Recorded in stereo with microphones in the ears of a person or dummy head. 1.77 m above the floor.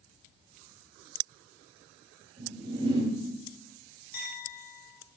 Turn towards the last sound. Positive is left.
turn(degrees=55)  # may be behind; listen again after turning